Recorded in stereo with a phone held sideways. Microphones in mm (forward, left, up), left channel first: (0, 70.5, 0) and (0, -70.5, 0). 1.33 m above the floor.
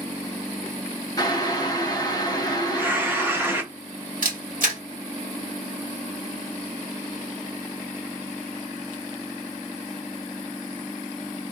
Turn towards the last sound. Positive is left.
turn(degrees=-70)  # may be behind; listen again after turning